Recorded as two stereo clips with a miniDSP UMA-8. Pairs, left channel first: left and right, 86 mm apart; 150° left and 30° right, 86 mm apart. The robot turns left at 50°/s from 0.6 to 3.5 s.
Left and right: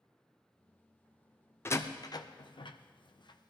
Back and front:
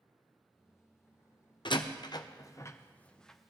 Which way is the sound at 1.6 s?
150° left.